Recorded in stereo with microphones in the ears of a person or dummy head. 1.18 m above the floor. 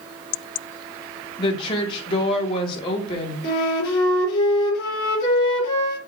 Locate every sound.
1.4 s a woman speaking: 25° left (ahead or behind), 1.9 m
3.4 s a flute: 55° left (ahead or behind), 4 m